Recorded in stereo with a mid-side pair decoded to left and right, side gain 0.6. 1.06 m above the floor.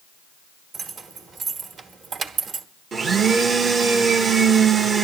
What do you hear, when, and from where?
0.7 s keys jangling: 45° right, 1.3 m
2.9 s a blender: 40° right, 0.9 m